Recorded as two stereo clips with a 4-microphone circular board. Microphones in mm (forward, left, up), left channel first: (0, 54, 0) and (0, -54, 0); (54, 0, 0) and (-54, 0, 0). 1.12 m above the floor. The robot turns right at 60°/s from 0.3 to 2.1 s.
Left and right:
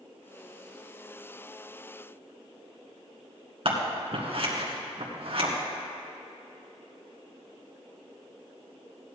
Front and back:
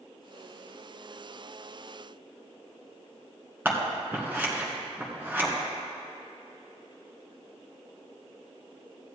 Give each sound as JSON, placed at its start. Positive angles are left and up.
{"t": 3.6, "sound": "scissors", "azimuth_deg": -110, "distance_m": 2.0}